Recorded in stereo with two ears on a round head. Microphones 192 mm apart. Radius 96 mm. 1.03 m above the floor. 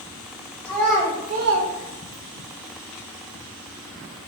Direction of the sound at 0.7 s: 10° left (ahead or behind).